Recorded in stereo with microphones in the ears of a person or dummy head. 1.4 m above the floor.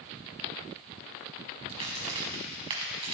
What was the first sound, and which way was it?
A crack, 30° right (ahead or behind).